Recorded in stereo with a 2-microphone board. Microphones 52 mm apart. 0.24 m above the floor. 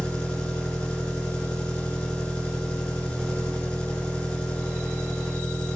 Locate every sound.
0.0 s an engine running: 20° left (ahead or behind), 1.1 m